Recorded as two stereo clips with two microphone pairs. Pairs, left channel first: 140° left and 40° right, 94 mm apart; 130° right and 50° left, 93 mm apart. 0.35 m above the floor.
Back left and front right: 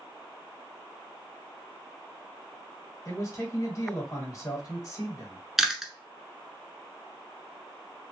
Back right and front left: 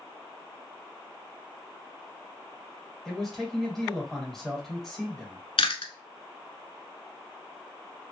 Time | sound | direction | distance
3.0 | a man speaking | 145° left | 1.5 m
5.6 | chewing | 130° right | 0.8 m